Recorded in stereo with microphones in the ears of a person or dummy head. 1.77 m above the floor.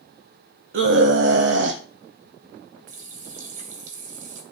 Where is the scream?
70° right (ahead or behind), 1.0 m.